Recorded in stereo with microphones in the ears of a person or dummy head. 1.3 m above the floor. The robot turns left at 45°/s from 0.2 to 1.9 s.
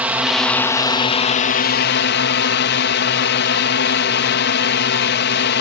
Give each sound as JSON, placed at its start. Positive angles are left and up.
{"t": 0.0, "sound": "a drone", "azimuth_deg": -170}